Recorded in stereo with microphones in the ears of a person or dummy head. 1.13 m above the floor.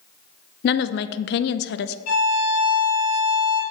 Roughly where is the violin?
Left.